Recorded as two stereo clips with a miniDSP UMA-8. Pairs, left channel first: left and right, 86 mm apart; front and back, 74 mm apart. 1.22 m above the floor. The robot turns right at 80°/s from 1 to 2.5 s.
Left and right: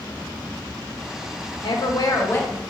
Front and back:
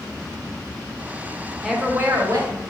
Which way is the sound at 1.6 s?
95° left.